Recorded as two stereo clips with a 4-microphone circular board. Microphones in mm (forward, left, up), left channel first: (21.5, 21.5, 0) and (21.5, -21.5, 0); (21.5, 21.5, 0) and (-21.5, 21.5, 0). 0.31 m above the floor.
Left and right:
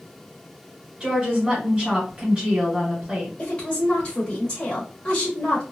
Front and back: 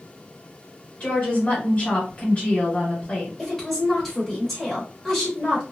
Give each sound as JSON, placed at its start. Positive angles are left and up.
{"t": 1.0, "sound": "a woman speaking", "azimuth_deg": -30, "distance_m": 1.8}
{"t": 3.4, "sound": "a woman speaking", "azimuth_deg": 80, "distance_m": 1.0}